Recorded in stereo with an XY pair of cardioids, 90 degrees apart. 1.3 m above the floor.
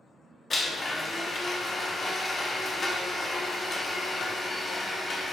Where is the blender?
40° left, 0.7 m.